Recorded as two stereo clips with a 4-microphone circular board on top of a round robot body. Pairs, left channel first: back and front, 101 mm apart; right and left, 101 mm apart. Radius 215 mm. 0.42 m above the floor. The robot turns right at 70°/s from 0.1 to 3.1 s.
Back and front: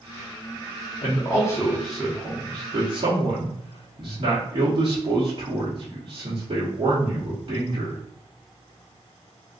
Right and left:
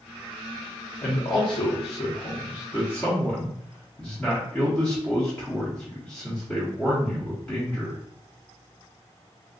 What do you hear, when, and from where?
1.0 s a man speaking: 155° right, 1.7 m; by 8.0 s 10° right, 1.7 m